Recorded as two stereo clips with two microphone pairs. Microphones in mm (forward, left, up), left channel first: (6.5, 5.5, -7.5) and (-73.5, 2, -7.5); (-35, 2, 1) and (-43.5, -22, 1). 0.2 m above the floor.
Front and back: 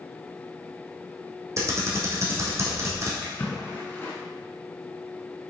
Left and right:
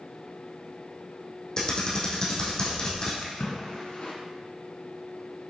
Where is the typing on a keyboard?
130° left, 2 m.